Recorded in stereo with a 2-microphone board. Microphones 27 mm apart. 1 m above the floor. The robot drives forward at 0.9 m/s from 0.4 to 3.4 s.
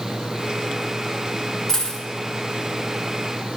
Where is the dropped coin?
15° left (ahead or behind), 1.4 m; by 2.0 s 20° left (ahead or behind), 1.1 m.